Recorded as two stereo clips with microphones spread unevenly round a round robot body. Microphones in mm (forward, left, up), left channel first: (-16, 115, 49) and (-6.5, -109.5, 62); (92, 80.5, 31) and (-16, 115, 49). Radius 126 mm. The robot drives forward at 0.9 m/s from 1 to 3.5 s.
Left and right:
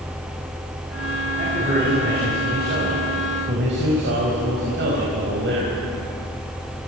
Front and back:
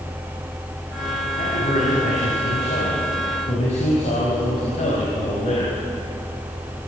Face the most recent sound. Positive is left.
turn(degrees=-50)